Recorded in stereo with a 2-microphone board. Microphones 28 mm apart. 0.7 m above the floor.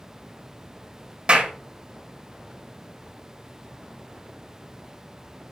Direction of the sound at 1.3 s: 45° right (ahead or behind).